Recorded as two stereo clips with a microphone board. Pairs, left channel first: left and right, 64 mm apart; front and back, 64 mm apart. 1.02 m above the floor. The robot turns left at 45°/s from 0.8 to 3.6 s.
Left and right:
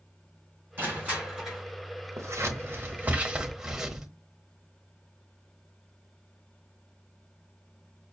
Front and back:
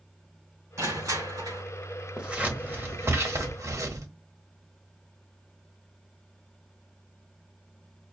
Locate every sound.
0.8 s crushing: 145° right, 3.5 m; by 1.6 s 175° left, 3.5 m
2.2 s scissors: 105° right, 1.0 m; by 4.1 s 170° right, 1.0 m